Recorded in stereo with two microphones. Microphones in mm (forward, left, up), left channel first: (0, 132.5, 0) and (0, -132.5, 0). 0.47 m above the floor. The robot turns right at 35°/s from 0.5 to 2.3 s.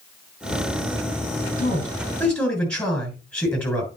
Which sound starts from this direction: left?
A man speaking, at 1.6 s.